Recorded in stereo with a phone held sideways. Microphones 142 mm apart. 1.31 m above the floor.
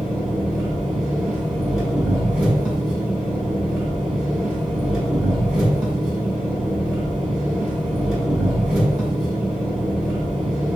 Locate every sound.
0.0 s an engine running: centre (ahead or behind), 1.3 m